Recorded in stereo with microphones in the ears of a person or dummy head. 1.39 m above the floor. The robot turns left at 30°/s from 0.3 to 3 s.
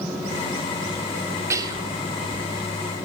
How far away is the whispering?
About 3 m.